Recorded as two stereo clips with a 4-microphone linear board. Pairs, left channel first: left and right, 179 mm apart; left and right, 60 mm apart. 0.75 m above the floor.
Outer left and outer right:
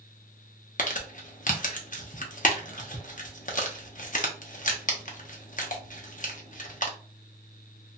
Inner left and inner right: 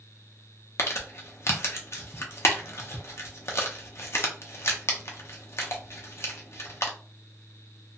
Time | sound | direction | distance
0.8 | crumpling | 50° left (ahead or behind) | 0.6 m